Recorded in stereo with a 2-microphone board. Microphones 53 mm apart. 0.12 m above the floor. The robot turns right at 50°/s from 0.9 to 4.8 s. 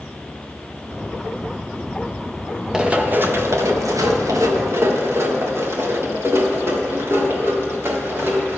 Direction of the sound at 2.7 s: 15° right (ahead or behind).